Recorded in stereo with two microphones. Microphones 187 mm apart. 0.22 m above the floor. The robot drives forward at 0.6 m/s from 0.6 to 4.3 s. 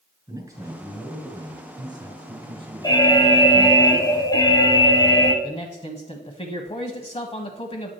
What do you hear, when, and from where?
0.3 s a man speaking: 20° right (ahead or behind), 3.5 m; by 3.8 s 30° right (ahead or behind), 2 m
2.8 s an alarm: 20° left (ahead or behind), 1.0 m
5.4 s a man speaking: 30° left (ahead or behind), 1.1 m